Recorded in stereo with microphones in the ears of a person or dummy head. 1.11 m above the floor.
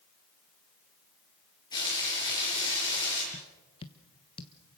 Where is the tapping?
30° left (ahead or behind), 1.3 m.